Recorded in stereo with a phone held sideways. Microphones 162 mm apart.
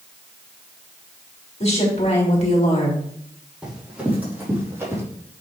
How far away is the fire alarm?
I don't hear a fire alarm.